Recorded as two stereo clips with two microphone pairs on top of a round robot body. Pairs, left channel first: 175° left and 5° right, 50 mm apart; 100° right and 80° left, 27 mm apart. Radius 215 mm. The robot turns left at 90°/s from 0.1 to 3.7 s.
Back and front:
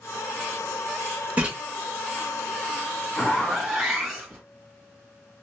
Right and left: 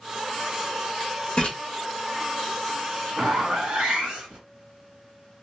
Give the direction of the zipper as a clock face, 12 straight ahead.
8 o'clock.